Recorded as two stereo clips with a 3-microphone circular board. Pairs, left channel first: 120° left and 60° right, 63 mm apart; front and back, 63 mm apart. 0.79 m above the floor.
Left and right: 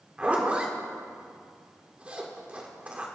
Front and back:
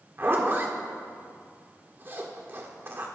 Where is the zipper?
130° right, 1.9 m.